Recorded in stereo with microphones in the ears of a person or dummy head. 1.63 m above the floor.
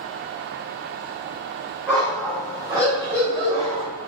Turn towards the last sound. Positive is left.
turn(degrees=-30)  # may be behind; listen again after turning